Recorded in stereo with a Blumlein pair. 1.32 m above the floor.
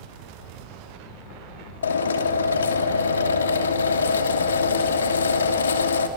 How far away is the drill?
About 2.5 m.